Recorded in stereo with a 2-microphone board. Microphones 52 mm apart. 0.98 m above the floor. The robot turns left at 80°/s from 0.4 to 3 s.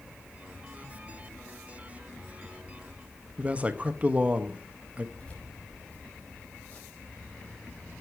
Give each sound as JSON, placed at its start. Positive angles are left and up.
{"t": 3.4, "sound": "a man speaking", "side_deg": -25, "distance_m": 1.1}
{"t": 5.2, "sound": "keys jangling", "side_deg": 25, "distance_m": 4.0}